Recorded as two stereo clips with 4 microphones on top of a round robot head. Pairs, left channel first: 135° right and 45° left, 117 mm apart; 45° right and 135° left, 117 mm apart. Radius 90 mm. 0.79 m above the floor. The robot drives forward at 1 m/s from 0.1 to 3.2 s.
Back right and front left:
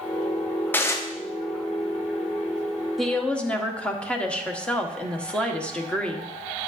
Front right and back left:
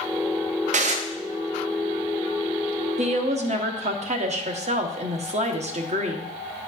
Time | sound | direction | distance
0.7 | dishes clattering | 150° left | 0.8 m
3.0 | a woman speaking | 135° left | 1.0 m